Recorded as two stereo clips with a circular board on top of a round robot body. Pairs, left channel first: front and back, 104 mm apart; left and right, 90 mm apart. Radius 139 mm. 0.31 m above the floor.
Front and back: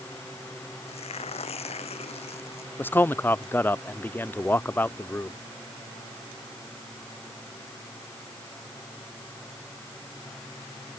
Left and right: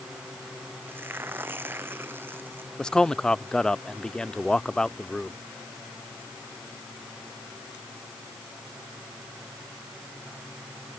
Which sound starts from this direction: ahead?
Tearing paper, at 0.9 s.